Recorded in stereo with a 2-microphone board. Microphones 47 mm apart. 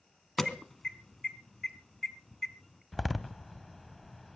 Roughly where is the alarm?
Centre.